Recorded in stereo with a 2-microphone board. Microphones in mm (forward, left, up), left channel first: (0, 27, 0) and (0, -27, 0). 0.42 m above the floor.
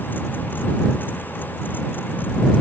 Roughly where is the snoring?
I don't hear snoring.